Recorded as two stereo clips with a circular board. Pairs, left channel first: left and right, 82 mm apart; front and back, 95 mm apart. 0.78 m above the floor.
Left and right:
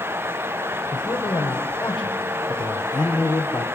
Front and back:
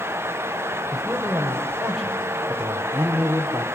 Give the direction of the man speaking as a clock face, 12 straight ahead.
9 o'clock.